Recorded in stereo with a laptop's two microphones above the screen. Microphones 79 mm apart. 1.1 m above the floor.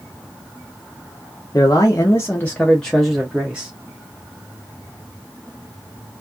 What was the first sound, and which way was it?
A man speaking, 40° left (ahead or behind).